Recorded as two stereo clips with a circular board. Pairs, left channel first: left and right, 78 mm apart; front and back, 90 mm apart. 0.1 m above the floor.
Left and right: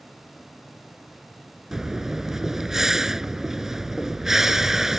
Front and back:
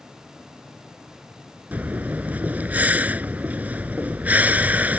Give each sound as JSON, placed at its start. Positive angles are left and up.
{"t": 1.7, "sound": "breathing", "azimuth_deg": -160}